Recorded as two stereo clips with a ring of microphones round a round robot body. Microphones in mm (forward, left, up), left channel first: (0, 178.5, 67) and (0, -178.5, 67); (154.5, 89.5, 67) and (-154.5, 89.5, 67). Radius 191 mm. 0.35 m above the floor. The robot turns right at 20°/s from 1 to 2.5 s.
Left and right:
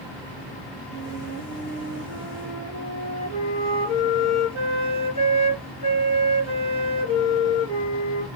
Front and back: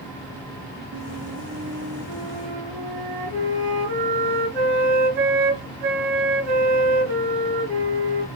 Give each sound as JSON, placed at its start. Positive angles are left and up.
{"t": 0.9, "sound": "a flute", "azimuth_deg": 165, "distance_m": 3.5}